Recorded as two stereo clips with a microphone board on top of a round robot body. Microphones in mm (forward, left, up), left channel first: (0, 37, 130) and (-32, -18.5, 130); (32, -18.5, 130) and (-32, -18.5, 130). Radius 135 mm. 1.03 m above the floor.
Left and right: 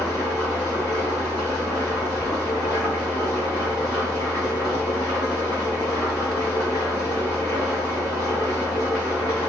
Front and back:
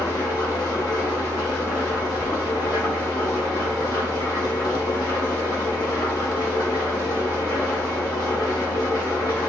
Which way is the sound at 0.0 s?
35° left.